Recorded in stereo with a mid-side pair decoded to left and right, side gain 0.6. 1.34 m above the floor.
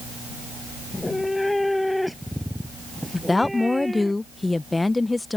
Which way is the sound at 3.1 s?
15° left.